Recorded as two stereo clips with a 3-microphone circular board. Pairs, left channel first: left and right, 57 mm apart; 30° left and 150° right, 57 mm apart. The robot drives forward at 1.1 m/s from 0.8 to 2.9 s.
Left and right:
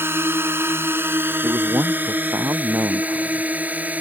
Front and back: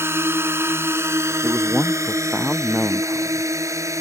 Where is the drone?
125° right; by 4.0 s 150° right.